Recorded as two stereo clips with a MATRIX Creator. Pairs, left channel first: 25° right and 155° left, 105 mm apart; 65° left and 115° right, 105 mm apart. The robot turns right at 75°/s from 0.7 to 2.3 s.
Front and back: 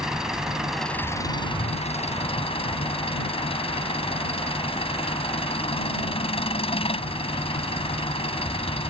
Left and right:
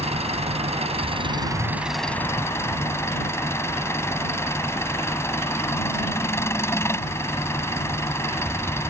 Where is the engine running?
120° right; by 8.9 s straight ahead.